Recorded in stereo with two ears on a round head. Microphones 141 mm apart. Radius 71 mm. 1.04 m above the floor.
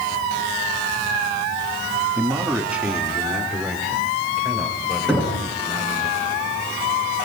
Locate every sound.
2.2 s a man speaking: 15° right (ahead or behind), 1.9 m; by 6.1 s centre (ahead or behind), 7 m
5.1 s knocking: 5° left (ahead or behind), 9.5 m